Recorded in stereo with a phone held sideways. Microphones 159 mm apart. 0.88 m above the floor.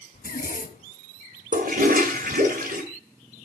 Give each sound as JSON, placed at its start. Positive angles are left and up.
{"t": 0.1, "sound": "a zipper", "side_deg": 70, "distance_m": 1.8}
{"t": 1.5, "sound": "a toilet flushing", "side_deg": -65, "distance_m": 2.0}